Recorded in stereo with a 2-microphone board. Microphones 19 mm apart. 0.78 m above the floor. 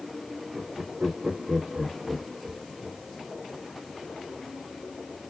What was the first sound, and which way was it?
Laughter, 45° right (ahead or behind).